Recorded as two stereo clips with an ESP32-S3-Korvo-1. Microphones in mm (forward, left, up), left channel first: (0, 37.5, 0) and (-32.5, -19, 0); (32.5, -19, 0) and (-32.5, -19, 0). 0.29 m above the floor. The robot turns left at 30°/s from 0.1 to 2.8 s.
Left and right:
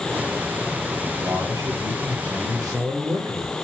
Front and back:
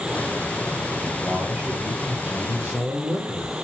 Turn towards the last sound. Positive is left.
turn(degrees=-115)